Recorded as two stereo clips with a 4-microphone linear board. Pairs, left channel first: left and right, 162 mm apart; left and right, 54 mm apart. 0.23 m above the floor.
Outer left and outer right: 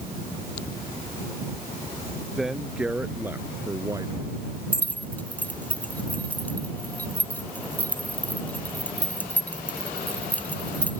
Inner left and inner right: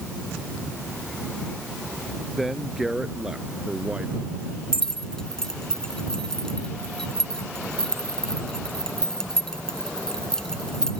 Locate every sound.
2.4 s a man speaking: 5° right (ahead or behind); by 4.3 s 25° right (ahead or behind)
4.7 s keys jangling: 10° left (ahead or behind)